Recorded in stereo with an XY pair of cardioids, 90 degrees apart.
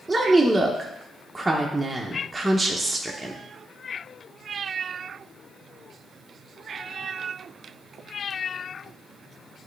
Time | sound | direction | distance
0.1 | a woman speaking | 15° right | 0.8 m